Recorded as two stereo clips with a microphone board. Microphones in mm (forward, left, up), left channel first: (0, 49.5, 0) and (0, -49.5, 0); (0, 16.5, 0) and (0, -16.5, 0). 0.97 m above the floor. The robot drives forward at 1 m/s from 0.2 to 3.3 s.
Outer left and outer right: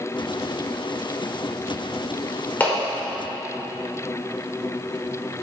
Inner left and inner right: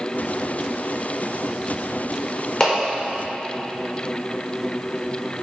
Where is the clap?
15° left (ahead or behind), 3 m; by 2.8 s 20° left (ahead or behind), 2.5 m.